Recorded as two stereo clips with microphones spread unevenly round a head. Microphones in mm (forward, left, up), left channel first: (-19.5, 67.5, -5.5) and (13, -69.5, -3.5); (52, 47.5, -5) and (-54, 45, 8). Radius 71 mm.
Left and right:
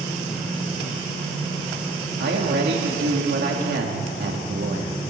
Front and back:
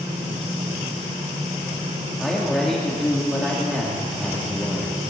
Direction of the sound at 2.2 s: 85° right.